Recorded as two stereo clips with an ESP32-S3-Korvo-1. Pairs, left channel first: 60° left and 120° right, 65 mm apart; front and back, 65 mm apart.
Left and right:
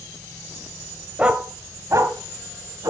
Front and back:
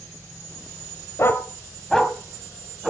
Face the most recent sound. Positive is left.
turn(degrees=-100)